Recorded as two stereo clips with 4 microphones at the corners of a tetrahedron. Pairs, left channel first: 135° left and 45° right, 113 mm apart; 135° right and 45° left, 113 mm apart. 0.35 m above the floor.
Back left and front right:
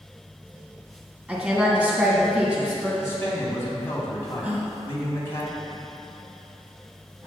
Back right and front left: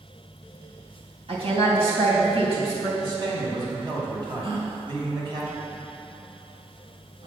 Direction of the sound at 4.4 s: 30° left.